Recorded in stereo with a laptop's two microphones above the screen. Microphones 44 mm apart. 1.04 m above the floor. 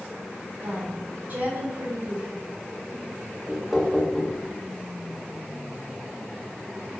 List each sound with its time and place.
0.6 s a woman speaking: 45° right (ahead or behind), 3 m
3.5 s knocking: centre (ahead or behind), 1.2 m